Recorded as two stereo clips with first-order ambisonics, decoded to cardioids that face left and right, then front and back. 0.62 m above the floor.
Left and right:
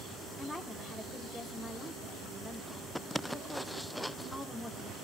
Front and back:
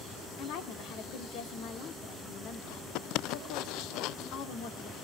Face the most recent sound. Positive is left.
turn(degrees=0)